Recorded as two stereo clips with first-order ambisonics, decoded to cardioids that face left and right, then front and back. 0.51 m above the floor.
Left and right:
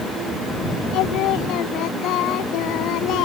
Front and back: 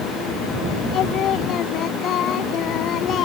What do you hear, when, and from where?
0.9 s singing: 50° left